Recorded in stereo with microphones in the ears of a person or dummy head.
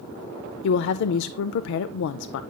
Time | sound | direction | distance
0.6 | a woman speaking | 70° left (ahead or behind) | 0.5 m